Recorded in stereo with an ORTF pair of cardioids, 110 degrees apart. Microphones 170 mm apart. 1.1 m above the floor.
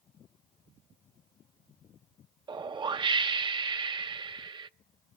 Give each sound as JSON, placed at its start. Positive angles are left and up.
{"t": 2.5, "sound": "a whoosh", "azimuth_deg": -30, "distance_m": 0.6}